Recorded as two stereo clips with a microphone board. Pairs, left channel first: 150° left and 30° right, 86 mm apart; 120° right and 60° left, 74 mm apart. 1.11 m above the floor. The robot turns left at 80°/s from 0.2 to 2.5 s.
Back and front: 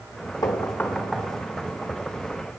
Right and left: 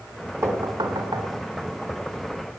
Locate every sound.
0.4 s knocking: 110° left, 3 m; by 1.3 s 40° left, 3 m